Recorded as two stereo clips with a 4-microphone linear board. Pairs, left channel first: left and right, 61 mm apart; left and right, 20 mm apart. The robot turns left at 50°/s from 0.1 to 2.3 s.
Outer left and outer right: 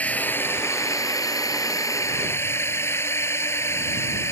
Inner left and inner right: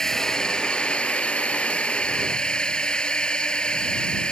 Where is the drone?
25° left (ahead or behind); by 4.3 s 50° left (ahead or behind).